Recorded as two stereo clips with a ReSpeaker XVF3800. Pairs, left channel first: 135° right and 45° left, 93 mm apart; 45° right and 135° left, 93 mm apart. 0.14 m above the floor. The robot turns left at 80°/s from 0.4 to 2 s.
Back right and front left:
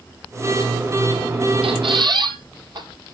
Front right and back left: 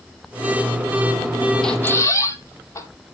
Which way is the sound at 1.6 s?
40° left.